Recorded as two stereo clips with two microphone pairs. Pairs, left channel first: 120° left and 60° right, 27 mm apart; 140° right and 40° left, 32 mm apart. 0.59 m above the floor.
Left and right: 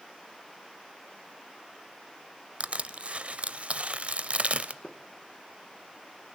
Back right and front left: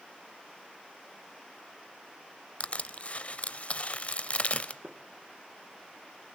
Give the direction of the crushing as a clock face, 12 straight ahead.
3 o'clock.